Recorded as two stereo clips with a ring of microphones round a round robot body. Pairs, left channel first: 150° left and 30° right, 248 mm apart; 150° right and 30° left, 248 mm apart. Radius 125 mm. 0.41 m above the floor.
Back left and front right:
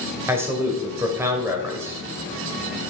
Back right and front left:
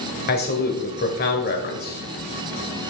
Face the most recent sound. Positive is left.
turn(degrees=-110)